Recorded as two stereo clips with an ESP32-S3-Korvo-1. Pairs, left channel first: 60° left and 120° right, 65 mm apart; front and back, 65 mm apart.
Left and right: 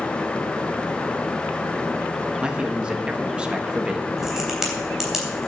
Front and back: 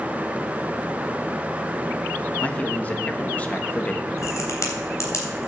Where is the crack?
35° right, 3 m.